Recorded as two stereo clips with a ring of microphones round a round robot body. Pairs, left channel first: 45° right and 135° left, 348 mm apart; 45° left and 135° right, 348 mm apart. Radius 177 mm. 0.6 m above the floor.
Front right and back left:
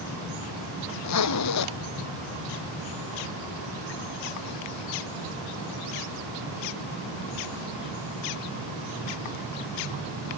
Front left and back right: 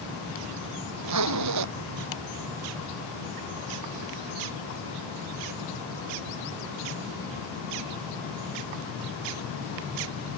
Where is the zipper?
90° right.